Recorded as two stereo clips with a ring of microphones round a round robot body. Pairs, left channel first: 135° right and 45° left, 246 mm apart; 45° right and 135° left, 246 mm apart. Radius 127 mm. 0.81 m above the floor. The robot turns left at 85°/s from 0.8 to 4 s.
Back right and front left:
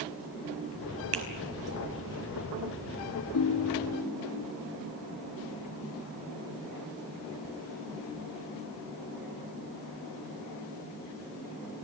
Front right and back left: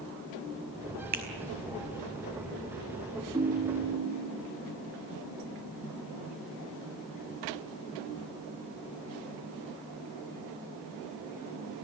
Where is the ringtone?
150° right, 1.1 m; by 4.4 s 155° left, 1.1 m.